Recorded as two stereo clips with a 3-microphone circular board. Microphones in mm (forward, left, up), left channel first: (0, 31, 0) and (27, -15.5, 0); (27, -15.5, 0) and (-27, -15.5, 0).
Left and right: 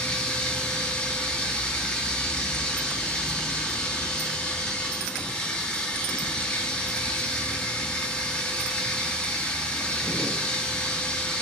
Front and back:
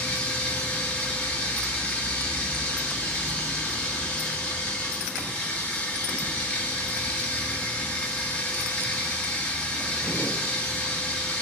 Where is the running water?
60° left, 0.8 m.